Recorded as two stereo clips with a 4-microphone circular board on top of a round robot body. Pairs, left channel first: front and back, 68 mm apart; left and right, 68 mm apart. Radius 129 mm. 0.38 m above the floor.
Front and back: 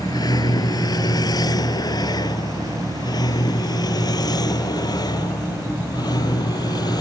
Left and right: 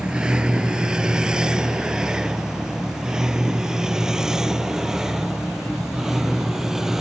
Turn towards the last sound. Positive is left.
turn(degrees=-10)